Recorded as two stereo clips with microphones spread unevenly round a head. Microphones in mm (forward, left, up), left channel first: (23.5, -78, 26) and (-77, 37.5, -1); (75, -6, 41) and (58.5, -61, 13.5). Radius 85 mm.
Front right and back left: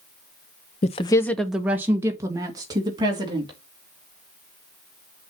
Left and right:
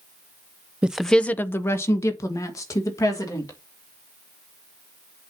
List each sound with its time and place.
0.8 s a woman speaking: 20° right, 0.5 m; by 3.6 s 65° left, 2.5 m